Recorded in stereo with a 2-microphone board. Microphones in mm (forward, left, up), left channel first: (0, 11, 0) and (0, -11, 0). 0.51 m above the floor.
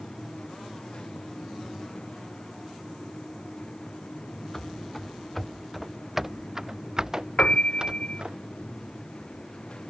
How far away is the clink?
I don't hear a clink.